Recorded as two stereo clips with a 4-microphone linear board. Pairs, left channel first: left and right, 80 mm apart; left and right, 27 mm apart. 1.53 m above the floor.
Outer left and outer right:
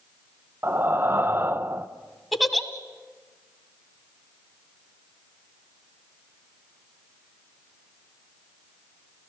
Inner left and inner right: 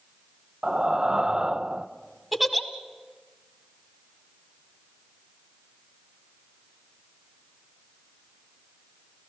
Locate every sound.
0.6 s breathing: 30° right (ahead or behind), 0.7 m
2.3 s a giggle: centre (ahead or behind), 1.5 m